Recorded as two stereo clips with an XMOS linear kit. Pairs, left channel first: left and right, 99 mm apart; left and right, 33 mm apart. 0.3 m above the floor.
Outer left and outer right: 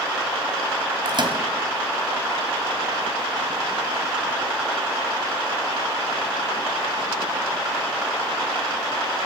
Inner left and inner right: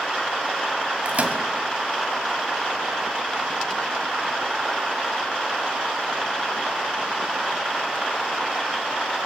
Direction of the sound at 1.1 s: 50° right (ahead or behind).